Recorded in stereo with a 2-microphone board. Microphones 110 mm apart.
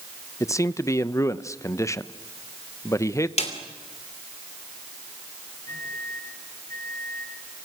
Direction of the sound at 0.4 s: 30° left (ahead or behind).